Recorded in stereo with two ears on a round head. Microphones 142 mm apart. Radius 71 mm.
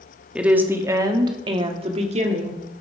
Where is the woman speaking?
5° right (ahead or behind), 1.3 m; by 2.6 s 50° right (ahead or behind), 1.8 m.